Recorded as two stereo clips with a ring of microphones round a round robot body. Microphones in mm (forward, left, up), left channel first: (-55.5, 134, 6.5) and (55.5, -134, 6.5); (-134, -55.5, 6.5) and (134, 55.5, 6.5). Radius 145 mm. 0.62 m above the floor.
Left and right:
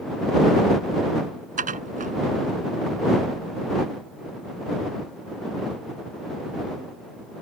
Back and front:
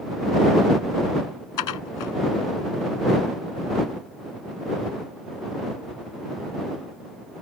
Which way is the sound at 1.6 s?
130° right.